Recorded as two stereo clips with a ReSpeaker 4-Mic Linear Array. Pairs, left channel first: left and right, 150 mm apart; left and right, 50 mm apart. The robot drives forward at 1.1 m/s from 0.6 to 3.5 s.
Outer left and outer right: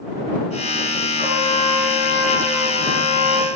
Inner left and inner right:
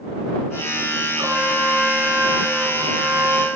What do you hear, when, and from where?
1.2 s a trumpet: 75° right (ahead or behind), 4.5 m; by 3.5 s 65° right (ahead or behind), 5 m